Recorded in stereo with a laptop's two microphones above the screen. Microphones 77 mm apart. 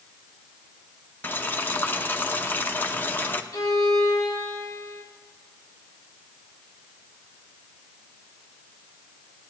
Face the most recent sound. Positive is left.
turn(degrees=50)  # may be behind; listen again after turning